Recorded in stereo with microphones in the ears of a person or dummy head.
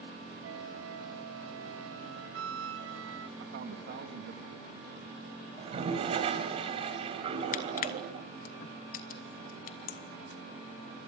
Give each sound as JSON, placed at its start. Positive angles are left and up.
{"t": 0.4, "sound": "a flute", "side_deg": -85, "distance_m": 1.2}
{"t": 3.4, "sound": "a man speaking", "side_deg": -50, "distance_m": 3.0}
{"t": 5.6, "sound": "a toilet flushing", "side_deg": -25, "distance_m": 3.0}
{"t": 7.5, "sound": "crushing", "side_deg": 55, "distance_m": 1.2}